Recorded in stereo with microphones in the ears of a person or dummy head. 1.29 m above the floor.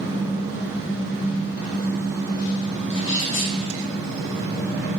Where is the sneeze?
70° left (ahead or behind), 0.6 m.